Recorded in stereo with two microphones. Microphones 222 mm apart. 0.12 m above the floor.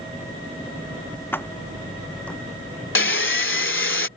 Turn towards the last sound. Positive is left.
turn(degrees=65)  # may be behind; listen again after turning